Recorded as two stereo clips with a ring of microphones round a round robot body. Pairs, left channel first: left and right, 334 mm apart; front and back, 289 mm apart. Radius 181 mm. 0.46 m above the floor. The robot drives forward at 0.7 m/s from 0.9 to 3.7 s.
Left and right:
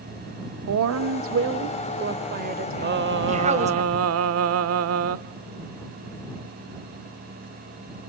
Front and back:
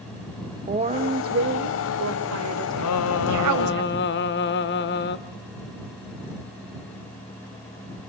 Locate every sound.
0.7 s a woman speaking: 120° right, 1.2 m; by 3.8 s 160° right, 2.5 m
2.8 s singing: 30° right, 1.6 m; by 5.2 s 50° right, 1.1 m